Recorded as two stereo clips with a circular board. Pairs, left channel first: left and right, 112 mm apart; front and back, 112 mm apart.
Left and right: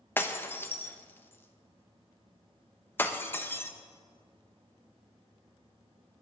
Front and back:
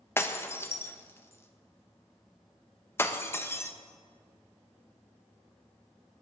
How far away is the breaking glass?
About 0.9 m.